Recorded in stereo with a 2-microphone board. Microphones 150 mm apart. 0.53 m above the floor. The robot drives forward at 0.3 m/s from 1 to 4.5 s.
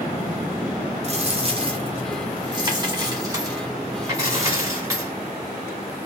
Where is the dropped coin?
45° right (ahead or behind), 0.9 m; by 5.1 s 20° right (ahead or behind), 1.8 m.